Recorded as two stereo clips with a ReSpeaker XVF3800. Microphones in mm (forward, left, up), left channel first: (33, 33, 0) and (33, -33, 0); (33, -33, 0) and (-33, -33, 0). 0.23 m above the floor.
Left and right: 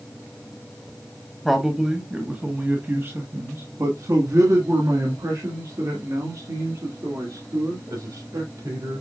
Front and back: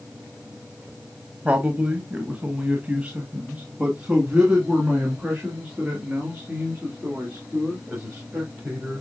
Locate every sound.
1.4 s a man speaking: 175° left, 1.3 m; by 9.0 s 105° right, 5.5 m